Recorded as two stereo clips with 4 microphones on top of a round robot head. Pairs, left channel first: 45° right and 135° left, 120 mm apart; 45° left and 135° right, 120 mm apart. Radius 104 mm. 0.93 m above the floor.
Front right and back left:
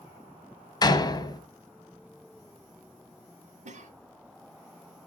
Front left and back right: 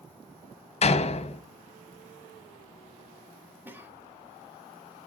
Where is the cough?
150° left, 1.4 m.